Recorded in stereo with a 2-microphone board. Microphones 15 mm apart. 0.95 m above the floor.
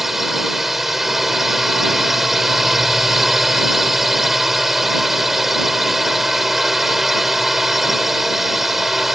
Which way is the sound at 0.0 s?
15° right (ahead or behind).